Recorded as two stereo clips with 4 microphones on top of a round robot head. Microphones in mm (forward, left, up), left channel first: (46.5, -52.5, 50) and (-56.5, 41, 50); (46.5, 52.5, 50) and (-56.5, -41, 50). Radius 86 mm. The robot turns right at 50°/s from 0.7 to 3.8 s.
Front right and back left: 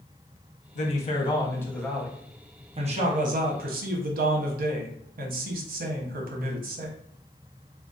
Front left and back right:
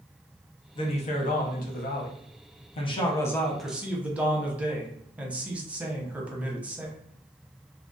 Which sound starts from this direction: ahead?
A man speaking, at 0.8 s.